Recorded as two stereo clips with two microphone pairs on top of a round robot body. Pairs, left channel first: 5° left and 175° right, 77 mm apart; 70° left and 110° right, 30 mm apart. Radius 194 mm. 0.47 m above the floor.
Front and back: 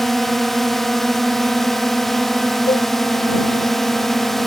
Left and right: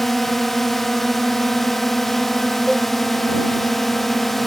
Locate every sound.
0.0 s a drone: 105° left
2.7 s a cowbell: 15° right